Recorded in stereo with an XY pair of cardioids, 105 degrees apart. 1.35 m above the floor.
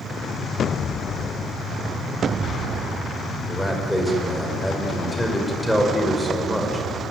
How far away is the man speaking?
About 5 m.